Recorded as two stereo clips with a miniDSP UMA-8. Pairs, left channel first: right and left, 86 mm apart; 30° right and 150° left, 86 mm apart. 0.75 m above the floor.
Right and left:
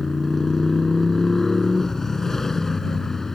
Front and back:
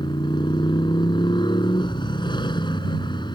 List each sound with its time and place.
0.0 s a motorcycle: 5° right